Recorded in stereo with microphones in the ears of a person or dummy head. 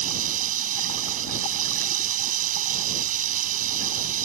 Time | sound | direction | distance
0.0 | running water | 45° right (ahead or behind) | ?